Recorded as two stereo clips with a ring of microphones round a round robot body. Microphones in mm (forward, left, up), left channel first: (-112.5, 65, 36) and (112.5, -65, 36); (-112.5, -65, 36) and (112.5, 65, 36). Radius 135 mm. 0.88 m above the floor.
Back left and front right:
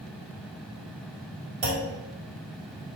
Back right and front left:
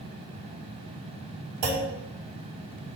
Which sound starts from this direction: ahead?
A clunk, at 1.6 s.